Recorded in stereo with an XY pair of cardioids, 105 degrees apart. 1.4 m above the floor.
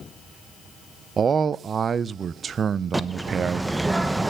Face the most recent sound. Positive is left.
turn(degrees=-5)